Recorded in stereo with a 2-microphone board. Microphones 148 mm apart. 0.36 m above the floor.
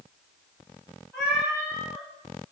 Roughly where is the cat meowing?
Centre.